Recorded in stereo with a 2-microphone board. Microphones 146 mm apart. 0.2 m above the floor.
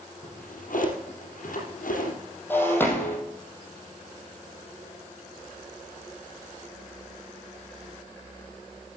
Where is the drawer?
70° left (ahead or behind), 3.5 m.